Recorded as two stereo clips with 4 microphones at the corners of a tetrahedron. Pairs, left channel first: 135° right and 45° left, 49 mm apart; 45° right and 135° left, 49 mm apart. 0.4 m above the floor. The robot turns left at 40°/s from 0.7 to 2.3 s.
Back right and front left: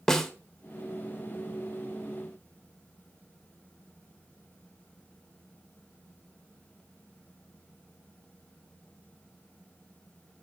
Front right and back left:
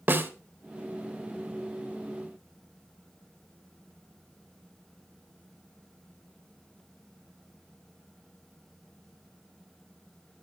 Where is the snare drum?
145° left, 1.1 m.